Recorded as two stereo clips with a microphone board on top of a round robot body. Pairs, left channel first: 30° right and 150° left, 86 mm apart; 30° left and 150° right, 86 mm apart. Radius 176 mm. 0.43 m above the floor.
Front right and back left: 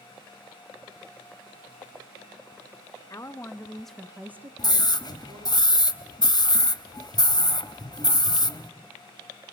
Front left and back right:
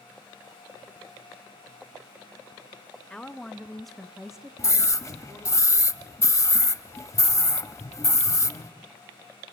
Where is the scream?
20° right, 1.4 m.